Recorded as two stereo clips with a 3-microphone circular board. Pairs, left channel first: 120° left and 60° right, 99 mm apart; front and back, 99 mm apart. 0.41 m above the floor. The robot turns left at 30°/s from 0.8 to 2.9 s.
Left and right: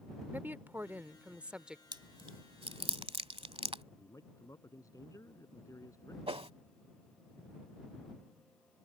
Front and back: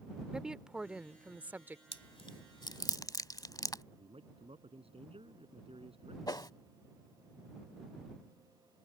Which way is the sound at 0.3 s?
105° right.